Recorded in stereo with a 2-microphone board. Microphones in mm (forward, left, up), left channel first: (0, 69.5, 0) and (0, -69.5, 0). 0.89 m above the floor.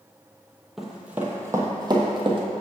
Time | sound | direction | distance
0.8 | running footsteps | centre (ahead or behind) | 1.1 m